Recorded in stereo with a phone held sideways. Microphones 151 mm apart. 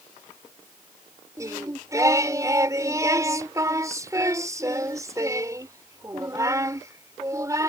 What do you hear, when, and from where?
1.4 s singing: 20° right (ahead or behind)